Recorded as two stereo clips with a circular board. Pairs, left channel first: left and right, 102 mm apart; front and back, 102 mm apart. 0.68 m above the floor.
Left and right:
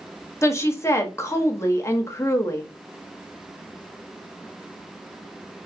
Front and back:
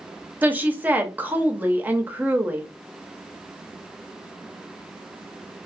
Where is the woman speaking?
120° left, 0.5 m.